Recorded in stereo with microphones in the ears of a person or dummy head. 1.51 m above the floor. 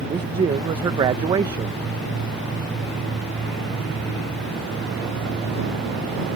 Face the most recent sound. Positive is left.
turn(degrees=-25)  # may be behind; listen again after turning